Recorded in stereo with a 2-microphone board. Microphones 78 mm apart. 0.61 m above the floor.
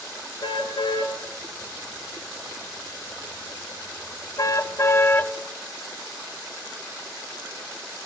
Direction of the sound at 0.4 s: 80° left.